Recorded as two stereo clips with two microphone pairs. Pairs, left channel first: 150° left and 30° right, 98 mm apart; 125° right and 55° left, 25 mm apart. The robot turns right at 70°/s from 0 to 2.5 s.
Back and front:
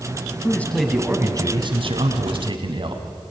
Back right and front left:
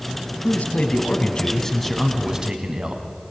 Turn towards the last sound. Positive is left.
turn(degrees=-5)